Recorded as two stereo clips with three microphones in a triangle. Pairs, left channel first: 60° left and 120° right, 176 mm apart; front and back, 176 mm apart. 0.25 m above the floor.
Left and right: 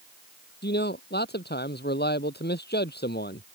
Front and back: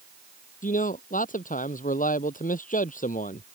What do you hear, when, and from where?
0.6 s a man speaking: 40° left